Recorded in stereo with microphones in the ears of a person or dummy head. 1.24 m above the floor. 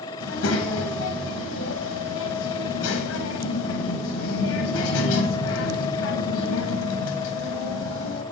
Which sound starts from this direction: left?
A child speaking, at 0.2 s.